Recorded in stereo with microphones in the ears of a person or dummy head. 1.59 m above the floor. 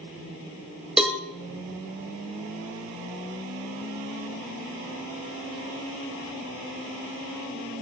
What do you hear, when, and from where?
1.0 s a cowbell: centre (ahead or behind), 1.0 m